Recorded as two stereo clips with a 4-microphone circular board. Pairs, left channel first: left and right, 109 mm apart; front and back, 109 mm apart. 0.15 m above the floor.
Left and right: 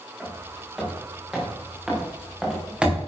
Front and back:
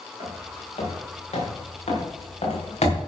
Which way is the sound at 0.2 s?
Straight ahead.